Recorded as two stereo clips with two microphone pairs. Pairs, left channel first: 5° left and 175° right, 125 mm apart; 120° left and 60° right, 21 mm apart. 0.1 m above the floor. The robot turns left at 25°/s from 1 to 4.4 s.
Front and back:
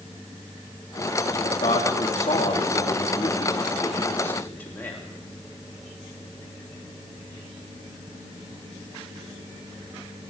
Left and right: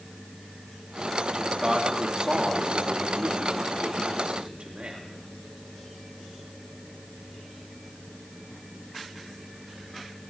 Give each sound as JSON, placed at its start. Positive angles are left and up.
{"t": 1.4, "sound": "a man speaking", "azimuth_deg": 5, "distance_m": 4.0}